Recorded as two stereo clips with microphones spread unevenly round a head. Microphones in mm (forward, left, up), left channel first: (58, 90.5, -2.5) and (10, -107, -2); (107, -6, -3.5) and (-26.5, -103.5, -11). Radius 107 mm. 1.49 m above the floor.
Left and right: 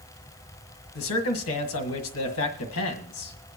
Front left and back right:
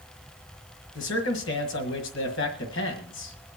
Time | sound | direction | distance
0.9 | a man speaking | 65° left | 1.6 m